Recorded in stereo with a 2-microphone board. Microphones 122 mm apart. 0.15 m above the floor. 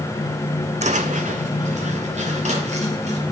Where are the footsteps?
70° right (ahead or behind), 0.6 m; by 3.2 s 65° right (ahead or behind), 3 m.